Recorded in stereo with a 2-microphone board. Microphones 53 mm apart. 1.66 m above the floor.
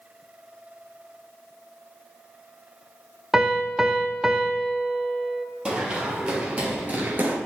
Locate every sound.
3.3 s a piano: 10° right (ahead or behind), 0.8 m
5.7 s running footsteps: 20° right (ahead or behind), 3 m; by 7.4 s 35° right (ahead or behind), 1.9 m